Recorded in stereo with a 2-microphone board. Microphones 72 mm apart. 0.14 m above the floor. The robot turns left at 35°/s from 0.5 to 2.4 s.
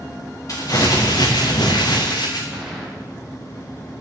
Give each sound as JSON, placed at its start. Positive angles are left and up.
{"t": 0.5, "sound": "crumpling", "azimuth_deg": 125, "distance_m": 4.0}
{"t": 2.5, "sound": "a gunshot", "side_deg": -15, "distance_m": 9.0}